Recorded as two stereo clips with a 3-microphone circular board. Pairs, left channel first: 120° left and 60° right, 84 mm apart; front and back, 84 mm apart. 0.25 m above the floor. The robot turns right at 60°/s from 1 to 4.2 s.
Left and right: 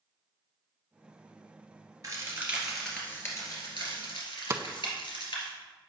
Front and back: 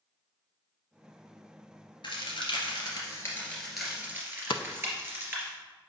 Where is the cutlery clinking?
No cutlery clinking in this recording.